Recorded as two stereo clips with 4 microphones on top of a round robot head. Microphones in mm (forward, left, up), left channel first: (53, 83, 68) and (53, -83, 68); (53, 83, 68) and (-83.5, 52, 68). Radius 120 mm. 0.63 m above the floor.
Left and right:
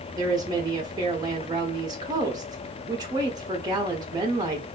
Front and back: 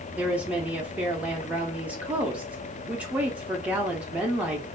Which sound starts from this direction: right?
A woman speaking, at 0.2 s.